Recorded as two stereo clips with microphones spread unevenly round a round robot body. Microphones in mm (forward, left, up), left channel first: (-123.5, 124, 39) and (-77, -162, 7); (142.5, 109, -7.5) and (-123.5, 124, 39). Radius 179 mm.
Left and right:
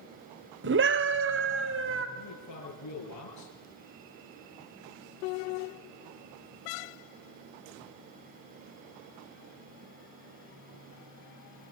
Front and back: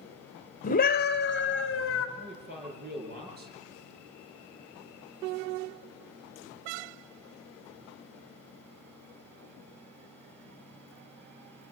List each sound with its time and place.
0.6 s a scream: 50° right, 1.4 m; by 2.1 s 35° right, 2.0 m
2.2 s a man speaking: 120° left, 7.5 m